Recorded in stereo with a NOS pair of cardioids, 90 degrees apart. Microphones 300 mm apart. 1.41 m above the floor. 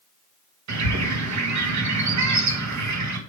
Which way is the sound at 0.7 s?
60° right.